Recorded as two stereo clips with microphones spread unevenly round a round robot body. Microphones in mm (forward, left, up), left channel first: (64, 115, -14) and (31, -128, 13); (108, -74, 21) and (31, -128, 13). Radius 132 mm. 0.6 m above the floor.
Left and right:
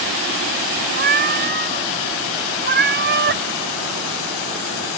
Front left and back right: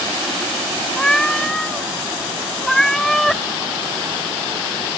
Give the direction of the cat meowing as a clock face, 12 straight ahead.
2 o'clock.